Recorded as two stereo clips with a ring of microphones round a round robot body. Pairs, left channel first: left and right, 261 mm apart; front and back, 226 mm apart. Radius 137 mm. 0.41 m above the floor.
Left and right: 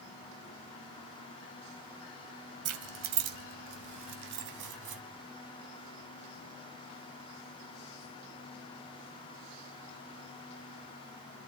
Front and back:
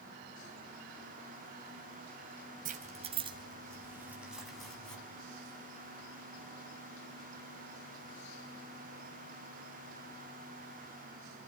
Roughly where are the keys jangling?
Behind right.